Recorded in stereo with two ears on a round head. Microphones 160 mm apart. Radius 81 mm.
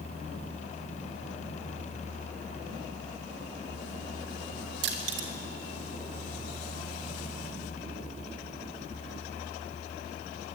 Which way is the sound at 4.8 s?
65° right (ahead or behind).